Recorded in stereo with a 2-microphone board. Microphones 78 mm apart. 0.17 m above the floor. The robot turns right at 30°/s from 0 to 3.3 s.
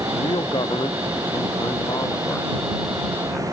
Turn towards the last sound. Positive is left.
turn(degrees=165)